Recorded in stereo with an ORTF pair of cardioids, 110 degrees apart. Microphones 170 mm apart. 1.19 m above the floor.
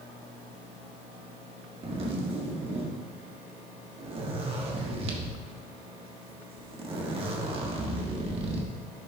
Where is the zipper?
35° right, 1.4 m.